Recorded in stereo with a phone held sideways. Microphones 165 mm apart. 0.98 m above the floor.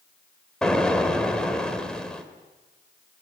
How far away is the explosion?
About 2 m.